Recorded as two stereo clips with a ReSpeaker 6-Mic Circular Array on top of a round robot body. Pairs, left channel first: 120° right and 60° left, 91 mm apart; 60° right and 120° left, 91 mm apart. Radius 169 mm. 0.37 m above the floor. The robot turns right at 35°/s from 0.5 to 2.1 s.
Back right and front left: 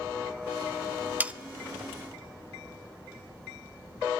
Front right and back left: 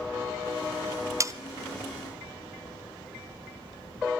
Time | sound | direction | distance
1.2 | sawing | 120° left | 0.8 m